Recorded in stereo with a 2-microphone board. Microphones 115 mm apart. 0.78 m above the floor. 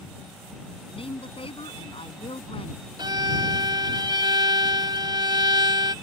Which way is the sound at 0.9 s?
55° left (ahead or behind).